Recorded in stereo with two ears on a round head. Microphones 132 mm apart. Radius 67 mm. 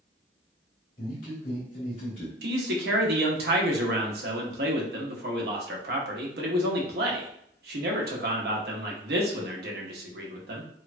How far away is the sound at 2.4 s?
About 0.8 m.